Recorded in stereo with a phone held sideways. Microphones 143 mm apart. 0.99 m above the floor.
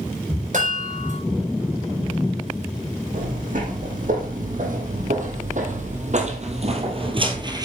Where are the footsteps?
70° right (ahead or behind), 3 m; by 7.7 s 25° right (ahead or behind), 1.4 m.